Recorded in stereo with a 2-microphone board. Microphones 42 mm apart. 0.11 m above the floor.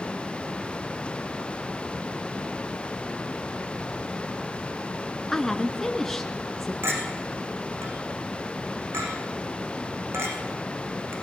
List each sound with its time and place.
5.3 s a woman speaking: 10° left (ahead or behind), 1.1 m
6.8 s a clink: 75° right (ahead or behind), 4 m